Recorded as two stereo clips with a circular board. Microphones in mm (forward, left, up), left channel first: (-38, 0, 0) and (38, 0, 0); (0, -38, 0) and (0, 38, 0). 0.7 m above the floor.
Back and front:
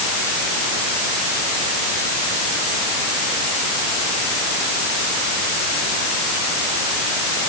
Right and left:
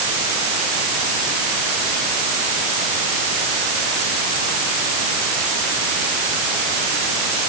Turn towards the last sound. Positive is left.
No sound to turn to.